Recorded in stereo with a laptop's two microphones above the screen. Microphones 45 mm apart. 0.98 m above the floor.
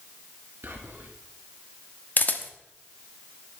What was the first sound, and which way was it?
Whispering, 55° right (ahead or behind).